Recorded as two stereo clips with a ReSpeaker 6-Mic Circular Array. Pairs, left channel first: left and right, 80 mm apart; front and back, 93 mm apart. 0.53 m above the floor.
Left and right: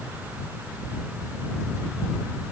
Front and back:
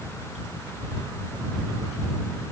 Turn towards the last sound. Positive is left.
No sound to turn to.